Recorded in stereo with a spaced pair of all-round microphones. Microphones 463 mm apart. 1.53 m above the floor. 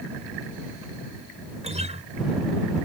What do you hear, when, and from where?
1.6 s a guitar: 15° right (ahead or behind)